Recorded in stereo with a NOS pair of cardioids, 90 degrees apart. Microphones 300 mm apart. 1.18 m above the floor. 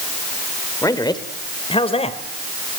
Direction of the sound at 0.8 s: 10° left.